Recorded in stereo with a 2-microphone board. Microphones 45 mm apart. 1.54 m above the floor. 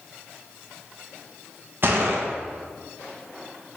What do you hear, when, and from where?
1.8 s a gunshot: 55° right (ahead or behind), 0.7 m